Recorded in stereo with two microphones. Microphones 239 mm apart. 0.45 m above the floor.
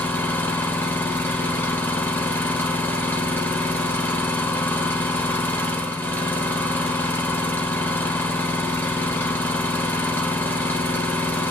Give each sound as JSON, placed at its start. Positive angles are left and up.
{"t": 0.0, "sound": "an engine running", "side_deg": 10, "distance_m": 0.8}